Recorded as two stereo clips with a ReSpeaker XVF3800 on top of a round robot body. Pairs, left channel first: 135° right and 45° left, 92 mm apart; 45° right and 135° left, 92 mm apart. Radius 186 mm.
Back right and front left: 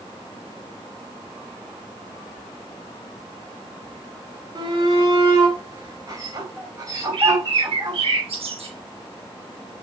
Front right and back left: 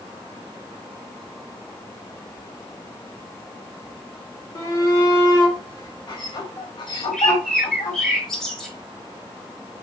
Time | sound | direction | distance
4.5 | a shout | 5° left | 3 m
7.1 | a bird | 40° left | 5.5 m